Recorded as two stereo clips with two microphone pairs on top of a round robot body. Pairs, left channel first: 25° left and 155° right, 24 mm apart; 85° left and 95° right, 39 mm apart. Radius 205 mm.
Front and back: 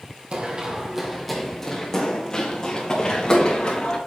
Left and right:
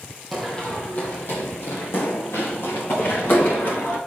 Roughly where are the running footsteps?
Behind.